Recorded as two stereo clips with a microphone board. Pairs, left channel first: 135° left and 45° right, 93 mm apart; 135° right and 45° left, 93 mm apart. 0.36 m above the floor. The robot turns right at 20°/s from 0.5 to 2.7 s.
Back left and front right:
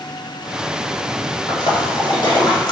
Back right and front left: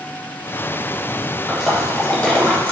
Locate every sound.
1.5 s a splash: 135° left, 0.6 m; by 2.7 s 160° left, 0.6 m